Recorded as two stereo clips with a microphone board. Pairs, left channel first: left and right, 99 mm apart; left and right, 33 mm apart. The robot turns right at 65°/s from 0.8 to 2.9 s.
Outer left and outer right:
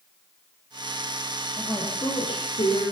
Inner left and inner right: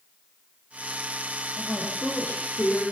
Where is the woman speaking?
15° left, 9 m; by 2.8 s 95° left, 9 m.